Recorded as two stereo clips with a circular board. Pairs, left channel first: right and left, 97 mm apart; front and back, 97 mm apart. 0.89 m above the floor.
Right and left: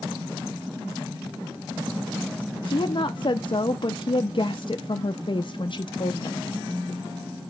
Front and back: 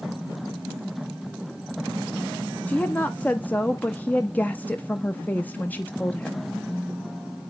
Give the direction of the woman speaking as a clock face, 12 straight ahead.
2 o'clock.